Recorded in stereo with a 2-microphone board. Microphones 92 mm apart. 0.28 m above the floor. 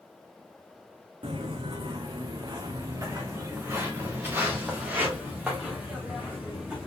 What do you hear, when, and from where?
1.2 s footsteps: 70° right (ahead or behind), 1.0 m; by 6.9 s 10° right (ahead or behind), 3 m